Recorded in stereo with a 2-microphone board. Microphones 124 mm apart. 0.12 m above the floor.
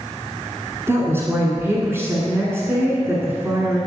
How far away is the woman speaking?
About 1.2 m.